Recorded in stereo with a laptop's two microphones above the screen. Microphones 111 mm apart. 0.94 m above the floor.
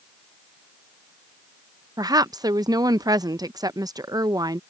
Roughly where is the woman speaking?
Right.